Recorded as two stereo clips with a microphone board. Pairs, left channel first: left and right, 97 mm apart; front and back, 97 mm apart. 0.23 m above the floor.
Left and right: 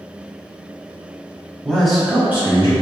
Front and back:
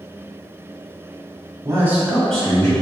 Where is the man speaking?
165° left, 1.2 m; by 2.7 s 50° right, 1.3 m.